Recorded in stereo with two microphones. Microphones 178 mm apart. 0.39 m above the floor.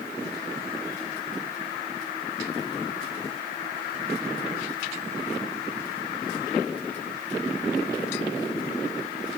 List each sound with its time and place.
Only background noise.